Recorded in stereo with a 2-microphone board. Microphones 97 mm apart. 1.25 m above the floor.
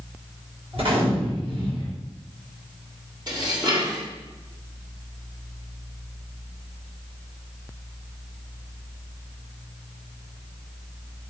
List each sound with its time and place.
0.7 s a gunshot: 65° right (ahead or behind), 4 m
3.3 s dishes clattering: 45° right (ahead or behind), 2.0 m